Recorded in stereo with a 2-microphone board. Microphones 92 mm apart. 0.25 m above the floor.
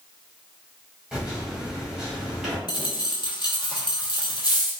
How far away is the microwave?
About 1.1 m.